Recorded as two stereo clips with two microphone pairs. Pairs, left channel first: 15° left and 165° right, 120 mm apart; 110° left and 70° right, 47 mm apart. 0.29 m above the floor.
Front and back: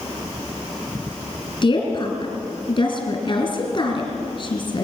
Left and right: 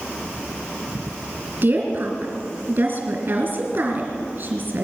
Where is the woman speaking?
35° right, 3.5 m.